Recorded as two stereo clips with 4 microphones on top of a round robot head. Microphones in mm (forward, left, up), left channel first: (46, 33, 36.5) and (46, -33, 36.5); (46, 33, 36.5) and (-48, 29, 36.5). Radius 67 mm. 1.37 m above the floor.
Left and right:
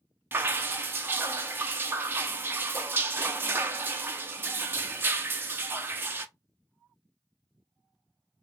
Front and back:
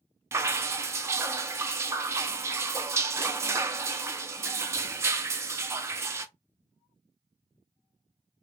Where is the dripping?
130° right, 0.5 m.